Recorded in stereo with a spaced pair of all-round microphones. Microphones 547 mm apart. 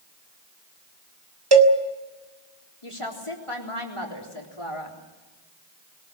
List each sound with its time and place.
1.5 s a cowbell: 45° right (ahead or behind), 1.8 m
2.8 s a woman speaking: 65° left (ahead or behind), 4 m